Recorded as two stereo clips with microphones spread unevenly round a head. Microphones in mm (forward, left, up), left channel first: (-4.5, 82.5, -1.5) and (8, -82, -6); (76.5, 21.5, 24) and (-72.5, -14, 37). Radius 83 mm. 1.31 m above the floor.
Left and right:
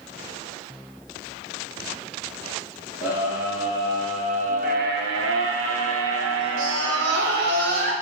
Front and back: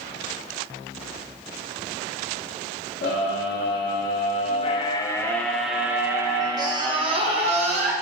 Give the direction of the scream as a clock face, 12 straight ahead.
12 o'clock.